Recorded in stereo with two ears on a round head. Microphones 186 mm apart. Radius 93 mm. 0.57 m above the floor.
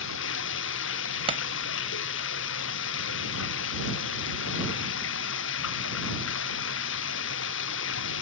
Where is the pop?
30° right (ahead or behind).